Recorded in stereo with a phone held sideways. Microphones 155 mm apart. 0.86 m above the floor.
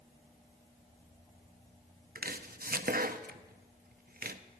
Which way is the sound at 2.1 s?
65° right (ahead or behind).